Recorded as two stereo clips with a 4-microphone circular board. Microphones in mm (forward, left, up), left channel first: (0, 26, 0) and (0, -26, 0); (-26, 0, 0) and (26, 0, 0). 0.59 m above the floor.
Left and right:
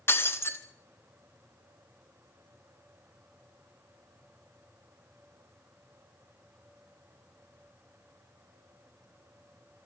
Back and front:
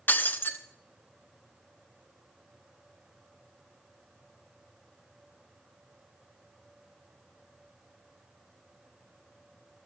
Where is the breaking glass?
130° left, 1.4 m.